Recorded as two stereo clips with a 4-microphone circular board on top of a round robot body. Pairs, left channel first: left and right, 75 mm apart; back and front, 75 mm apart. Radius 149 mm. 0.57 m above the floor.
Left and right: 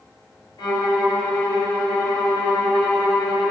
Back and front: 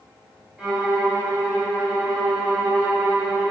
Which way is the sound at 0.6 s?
80° left.